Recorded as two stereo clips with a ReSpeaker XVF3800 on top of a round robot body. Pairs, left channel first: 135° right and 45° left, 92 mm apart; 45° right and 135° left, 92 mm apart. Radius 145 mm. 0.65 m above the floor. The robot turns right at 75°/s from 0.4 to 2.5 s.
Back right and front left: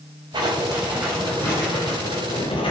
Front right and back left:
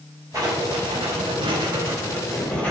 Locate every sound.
0.3 s writing: 85° left, 5 m; by 2.7 s 120° right, 5 m